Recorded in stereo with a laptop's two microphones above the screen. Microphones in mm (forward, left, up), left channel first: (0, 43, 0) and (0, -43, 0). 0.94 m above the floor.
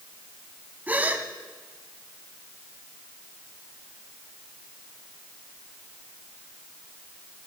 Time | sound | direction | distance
0.9 | a gasp | 20° right (ahead or behind) | 1.3 m